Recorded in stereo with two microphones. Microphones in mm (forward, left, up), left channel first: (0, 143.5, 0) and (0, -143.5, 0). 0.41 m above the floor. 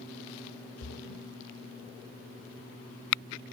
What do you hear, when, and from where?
0.8 s a splash: 50° left (ahead or behind), 0.8 m